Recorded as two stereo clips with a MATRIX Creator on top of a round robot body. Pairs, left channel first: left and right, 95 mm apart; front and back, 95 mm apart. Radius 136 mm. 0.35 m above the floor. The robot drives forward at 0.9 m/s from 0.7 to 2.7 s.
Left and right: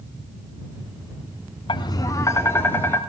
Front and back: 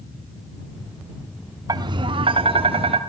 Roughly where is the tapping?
Behind left.